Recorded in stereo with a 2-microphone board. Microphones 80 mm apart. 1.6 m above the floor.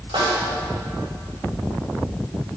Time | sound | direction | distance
0.1 | a snare drum | 85° right | 7.5 m